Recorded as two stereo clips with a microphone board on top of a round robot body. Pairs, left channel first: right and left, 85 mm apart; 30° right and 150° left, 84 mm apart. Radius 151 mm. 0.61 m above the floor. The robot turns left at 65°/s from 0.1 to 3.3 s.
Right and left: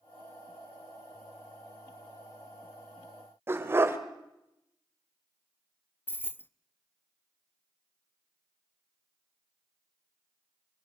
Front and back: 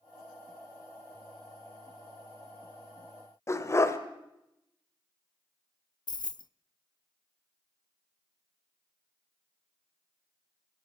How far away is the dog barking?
About 1.4 m.